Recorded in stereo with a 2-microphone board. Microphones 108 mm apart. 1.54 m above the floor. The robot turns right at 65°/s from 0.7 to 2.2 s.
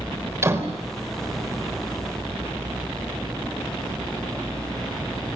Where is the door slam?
25° right (ahead or behind), 4 m; by 0.8 s 30° right (ahead or behind), 4 m.